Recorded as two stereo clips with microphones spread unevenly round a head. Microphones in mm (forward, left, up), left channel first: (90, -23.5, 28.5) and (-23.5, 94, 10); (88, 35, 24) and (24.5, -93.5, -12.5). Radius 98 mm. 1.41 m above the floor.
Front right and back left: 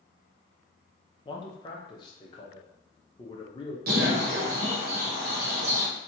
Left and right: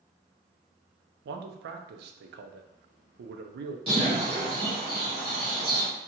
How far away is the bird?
About 0.7 m.